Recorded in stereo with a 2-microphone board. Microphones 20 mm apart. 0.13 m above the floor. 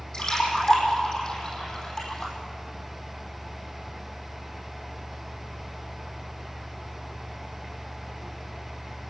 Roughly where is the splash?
Left.